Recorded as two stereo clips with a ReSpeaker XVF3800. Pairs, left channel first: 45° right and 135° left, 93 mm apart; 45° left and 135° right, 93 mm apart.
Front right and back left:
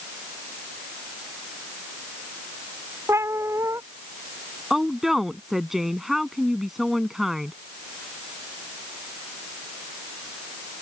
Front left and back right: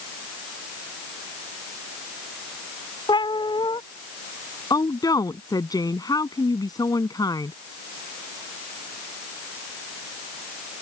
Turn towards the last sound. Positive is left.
turn(degrees=50)